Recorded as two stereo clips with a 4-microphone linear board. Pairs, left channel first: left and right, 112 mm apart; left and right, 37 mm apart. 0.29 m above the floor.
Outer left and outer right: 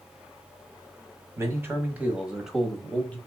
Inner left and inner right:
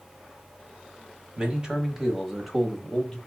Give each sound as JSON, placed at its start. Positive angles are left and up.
{"t": 1.4, "sound": "a man speaking", "side_deg": -25, "distance_m": 1.6}